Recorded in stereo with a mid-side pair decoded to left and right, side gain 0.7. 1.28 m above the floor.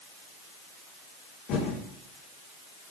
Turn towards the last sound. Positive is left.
turn(degrees=55)